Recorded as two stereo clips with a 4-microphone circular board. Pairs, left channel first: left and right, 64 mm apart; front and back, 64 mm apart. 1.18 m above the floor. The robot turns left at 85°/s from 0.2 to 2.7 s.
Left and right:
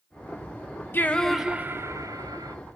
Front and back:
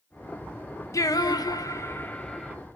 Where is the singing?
35° left, 0.5 m; by 2.6 s 105° right, 0.5 m.